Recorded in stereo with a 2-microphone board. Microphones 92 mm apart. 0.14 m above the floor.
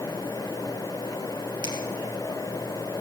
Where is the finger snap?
50° right (ahead or behind), 3 m.